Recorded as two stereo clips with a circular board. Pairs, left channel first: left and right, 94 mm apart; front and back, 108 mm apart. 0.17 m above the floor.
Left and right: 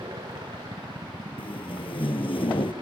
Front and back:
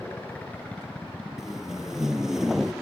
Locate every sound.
0.0 s a helicopter: 70° right; by 2.8 s 95° right
1.4 s tape being pulled: 95° left